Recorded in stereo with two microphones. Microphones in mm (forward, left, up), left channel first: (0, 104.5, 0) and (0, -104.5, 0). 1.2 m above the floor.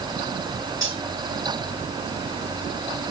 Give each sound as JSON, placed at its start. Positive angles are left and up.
{"t": 0.8, "sound": "cutlery clinking", "side_deg": 80, "distance_m": 5.0}